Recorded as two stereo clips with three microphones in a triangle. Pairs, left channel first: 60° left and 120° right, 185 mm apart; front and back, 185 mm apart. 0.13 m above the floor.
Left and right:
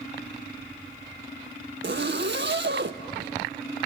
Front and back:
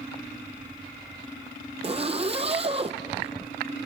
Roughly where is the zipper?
Behind right.